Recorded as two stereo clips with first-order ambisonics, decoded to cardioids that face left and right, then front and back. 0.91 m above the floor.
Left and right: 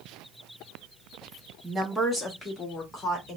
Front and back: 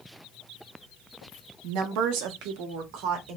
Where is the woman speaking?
165° right, 1.1 m; by 3.4 s 160° left, 1.6 m.